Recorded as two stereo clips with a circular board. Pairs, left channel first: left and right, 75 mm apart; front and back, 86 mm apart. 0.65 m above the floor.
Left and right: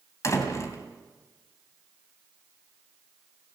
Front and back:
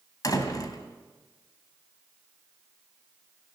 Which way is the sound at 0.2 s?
45° left.